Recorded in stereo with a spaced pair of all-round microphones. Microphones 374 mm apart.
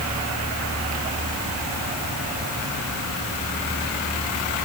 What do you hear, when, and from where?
Only background noise.